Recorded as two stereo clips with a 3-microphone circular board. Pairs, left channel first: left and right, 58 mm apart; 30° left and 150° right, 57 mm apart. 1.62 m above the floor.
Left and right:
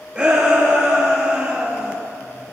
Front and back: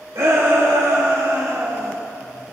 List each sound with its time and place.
0.1 s a shout: 165° right, 2.5 m; by 2.0 s 160° right, 1.5 m